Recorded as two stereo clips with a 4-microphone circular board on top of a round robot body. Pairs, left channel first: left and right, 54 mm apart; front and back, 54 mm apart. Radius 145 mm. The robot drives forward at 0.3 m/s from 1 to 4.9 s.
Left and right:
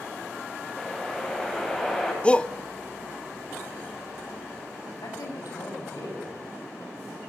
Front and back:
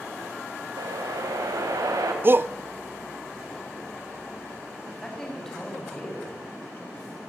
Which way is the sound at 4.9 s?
80° left.